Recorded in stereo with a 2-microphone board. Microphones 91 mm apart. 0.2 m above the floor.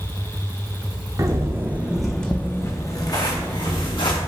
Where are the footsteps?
40° right (ahead or behind), 0.8 m; by 4.2 s 60° left (ahead or behind), 1.4 m.